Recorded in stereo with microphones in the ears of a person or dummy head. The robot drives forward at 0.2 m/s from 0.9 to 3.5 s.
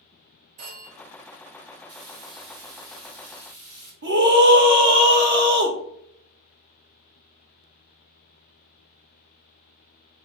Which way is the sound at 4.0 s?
85° right.